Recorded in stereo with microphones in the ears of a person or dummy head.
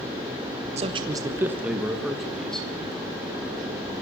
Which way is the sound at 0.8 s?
35° right (ahead or behind).